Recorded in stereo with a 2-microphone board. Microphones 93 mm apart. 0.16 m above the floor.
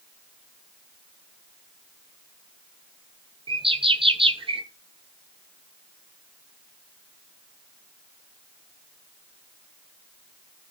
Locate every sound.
3.5 s a bird: 80° right, 1.0 m